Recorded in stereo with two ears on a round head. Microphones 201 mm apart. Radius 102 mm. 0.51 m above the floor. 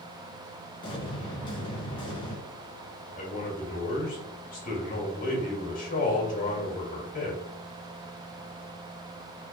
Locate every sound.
0.8 s an explosion: 25° left (ahead or behind), 1.9 m
3.2 s a man speaking: 40° left (ahead or behind), 2 m